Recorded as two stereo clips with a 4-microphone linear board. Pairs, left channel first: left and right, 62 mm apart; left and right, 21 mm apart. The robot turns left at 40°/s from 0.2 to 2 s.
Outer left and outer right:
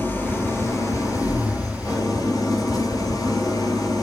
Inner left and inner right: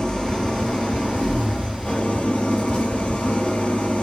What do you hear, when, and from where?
0.0 s an engine running: 150° left, 5 m; by 4.0 s 80° left, 5 m